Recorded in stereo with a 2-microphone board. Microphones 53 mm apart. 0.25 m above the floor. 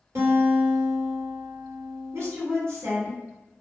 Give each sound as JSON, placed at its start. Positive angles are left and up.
{"t": 0.1, "sound": "a guitar", "side_deg": -65, "distance_m": 1.7}
{"t": 2.1, "sound": "a woman speaking", "side_deg": -60, "distance_m": 1.6}